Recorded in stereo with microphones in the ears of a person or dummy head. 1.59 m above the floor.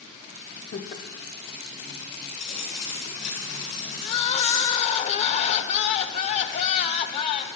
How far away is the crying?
About 0.7 m.